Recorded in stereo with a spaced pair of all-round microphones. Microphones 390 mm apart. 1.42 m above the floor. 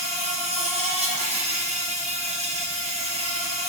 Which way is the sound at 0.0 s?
15° right (ahead or behind).